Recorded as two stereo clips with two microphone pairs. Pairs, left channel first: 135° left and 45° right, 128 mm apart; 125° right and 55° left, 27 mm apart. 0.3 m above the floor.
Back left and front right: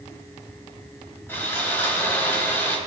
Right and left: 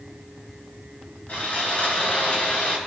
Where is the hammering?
No hammering in this recording.